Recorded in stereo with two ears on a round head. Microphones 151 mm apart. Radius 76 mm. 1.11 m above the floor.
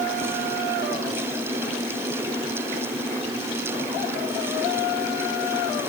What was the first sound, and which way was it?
Only background noise.